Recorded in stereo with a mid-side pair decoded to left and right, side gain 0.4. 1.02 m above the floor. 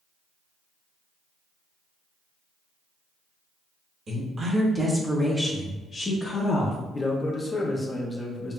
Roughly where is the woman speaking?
Ahead right.